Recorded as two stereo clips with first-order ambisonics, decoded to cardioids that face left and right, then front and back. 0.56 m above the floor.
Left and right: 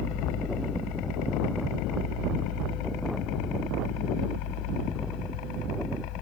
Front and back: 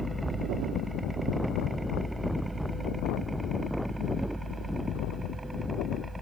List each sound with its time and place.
0.0 s a helicopter: 95° left; by 6.2 s 100° left